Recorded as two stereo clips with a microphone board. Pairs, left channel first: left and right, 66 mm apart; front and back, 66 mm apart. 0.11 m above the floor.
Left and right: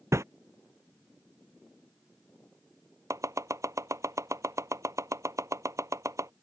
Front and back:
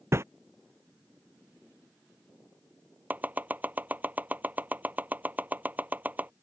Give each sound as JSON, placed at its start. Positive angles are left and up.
{"t": 0.1, "sound": "a whoosh", "azimuth_deg": -130}
{"t": 3.1, "sound": "chopping", "azimuth_deg": -120}